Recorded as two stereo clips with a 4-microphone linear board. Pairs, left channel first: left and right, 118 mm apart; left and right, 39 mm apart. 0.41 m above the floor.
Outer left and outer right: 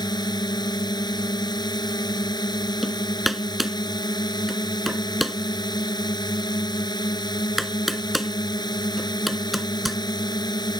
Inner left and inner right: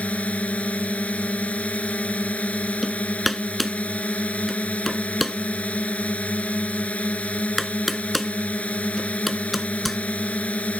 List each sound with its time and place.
0.0 s a drone: 35° left (ahead or behind)
2.8 s hammering: centre (ahead or behind)